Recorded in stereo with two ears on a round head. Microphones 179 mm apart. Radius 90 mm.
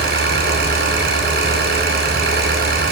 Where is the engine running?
55° right (ahead or behind), 5.5 m.